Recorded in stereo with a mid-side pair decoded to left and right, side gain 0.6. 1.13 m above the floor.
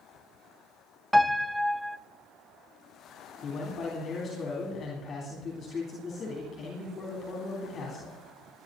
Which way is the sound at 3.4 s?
40° left.